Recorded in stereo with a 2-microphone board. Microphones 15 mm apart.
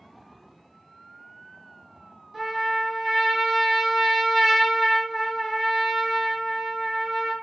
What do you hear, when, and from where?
2.3 s a trumpet: 20° right (ahead or behind), 1.0 m